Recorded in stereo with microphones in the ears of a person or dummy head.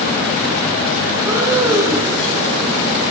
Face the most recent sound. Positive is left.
turn(degrees=-20)  # may be behind; listen again after turning